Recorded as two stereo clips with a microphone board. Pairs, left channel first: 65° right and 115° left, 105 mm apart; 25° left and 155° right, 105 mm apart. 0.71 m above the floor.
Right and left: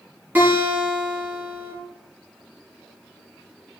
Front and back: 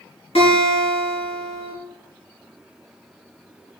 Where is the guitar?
40° left, 4.5 m.